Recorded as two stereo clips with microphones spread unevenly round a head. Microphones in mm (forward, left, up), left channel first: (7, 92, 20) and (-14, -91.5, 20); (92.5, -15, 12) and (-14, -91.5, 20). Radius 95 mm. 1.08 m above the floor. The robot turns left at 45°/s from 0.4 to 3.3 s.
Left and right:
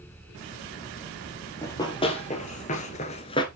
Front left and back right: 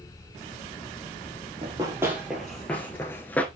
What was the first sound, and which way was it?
Running footsteps, 160° left.